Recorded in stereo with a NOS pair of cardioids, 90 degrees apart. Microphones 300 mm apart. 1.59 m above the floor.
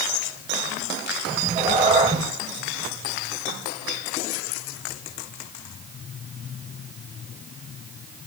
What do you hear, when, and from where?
1.3 s a cat meowing: 15° right, 4.5 m